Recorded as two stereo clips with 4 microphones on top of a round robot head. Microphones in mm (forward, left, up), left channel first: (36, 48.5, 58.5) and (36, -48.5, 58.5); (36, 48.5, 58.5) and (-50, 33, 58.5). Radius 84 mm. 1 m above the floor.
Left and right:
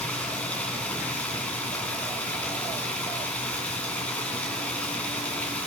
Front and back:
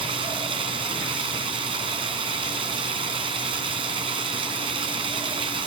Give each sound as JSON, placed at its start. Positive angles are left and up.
{"t": 0.0, "sound": "running water", "azimuth_deg": 170, "distance_m": 2.5}